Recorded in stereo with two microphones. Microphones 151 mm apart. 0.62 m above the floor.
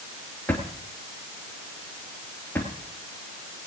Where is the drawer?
10° left (ahead or behind), 3 m.